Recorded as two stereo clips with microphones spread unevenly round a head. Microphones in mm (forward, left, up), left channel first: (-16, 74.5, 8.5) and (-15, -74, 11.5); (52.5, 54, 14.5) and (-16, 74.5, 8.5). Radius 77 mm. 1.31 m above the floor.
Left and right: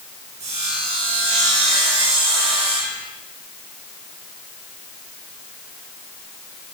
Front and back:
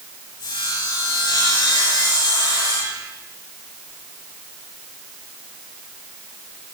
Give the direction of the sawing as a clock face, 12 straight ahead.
1 o'clock.